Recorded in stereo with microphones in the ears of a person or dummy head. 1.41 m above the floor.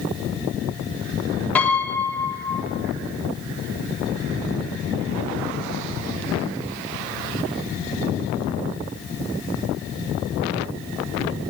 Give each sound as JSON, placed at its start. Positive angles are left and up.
{"t": 1.6, "sound": "a piano", "side_deg": 5, "distance_m": 3.0}